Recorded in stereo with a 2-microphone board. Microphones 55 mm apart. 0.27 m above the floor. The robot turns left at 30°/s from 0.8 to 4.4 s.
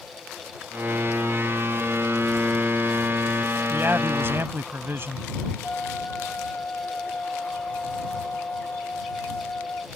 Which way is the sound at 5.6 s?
25° left (ahead or behind).